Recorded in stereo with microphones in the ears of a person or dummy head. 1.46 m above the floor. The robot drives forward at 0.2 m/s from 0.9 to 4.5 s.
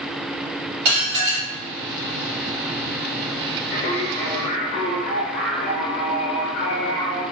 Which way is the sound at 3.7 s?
40° left (ahead or behind).